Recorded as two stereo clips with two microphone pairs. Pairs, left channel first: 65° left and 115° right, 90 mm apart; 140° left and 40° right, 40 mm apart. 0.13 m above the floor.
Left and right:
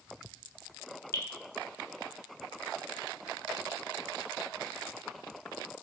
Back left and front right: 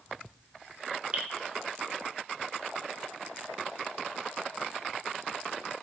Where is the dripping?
10° left, 0.7 m.